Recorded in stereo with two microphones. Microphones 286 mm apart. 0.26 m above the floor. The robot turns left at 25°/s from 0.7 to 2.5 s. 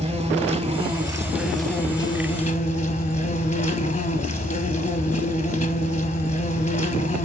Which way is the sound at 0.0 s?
160° right.